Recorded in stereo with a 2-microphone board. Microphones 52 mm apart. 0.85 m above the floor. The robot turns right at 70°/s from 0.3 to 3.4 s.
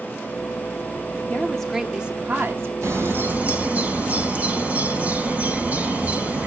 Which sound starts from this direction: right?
A bird, at 2.8 s.